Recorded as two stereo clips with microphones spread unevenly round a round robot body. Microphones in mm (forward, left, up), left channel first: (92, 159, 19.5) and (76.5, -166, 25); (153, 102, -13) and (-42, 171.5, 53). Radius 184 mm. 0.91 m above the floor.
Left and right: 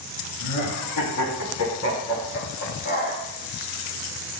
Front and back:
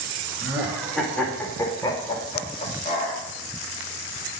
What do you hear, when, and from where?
0.4 s laughter: 75° left, 1.9 m; by 3.2 s 25° left, 2.5 m